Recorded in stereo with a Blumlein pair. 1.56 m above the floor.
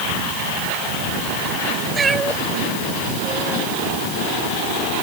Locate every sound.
1.9 s a cat meowing: 15° right; by 3.7 s 5° right